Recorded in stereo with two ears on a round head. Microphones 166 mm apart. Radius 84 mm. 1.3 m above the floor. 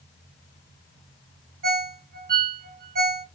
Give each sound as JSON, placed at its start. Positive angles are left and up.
{"t": 1.6, "sound": "a ringtone", "side_deg": -55, "distance_m": 0.8}